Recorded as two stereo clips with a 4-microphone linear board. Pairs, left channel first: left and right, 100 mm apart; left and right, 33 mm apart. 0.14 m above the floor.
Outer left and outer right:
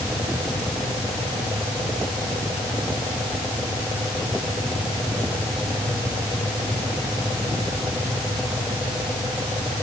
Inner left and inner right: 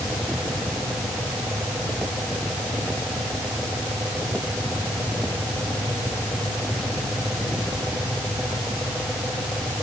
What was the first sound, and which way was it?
Only background noise.